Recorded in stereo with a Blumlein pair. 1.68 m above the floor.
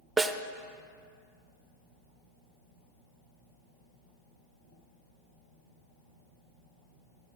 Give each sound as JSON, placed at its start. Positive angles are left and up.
{"t": 0.2, "sound": "a snare drum", "azimuth_deg": -5, "distance_m": 0.5}